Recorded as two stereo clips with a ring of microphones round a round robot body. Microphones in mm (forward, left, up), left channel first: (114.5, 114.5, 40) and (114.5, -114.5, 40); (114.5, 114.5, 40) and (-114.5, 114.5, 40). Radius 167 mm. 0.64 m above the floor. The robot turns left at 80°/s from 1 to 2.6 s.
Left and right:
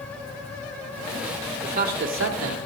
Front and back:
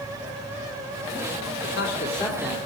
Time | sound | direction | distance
1.6 | a man speaking | 30° right | 2.5 m